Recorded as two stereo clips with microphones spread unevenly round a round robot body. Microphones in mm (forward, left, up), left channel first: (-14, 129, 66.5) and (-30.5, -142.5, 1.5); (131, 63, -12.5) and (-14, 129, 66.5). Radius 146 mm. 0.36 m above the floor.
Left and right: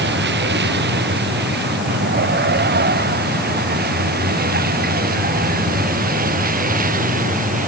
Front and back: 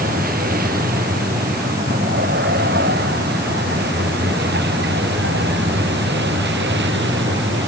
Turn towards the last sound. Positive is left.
turn(degrees=-155)